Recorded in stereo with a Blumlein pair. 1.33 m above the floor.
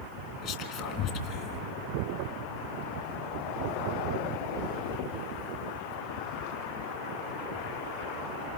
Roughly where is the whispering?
Ahead left.